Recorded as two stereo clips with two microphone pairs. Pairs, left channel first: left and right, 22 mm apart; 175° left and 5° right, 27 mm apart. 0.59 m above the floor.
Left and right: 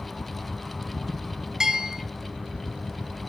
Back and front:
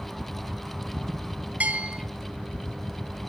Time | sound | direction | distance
1.6 | a bell | 30° right | 2.0 m